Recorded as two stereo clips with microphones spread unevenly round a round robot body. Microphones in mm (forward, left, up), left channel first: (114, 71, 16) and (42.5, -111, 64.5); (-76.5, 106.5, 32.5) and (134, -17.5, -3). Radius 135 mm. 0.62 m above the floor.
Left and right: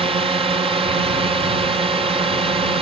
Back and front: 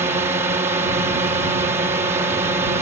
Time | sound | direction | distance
0.0 | a drone | 65° right | ?